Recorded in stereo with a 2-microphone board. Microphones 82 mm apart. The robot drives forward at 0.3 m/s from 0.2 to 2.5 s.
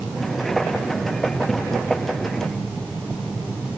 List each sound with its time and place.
Only background noise.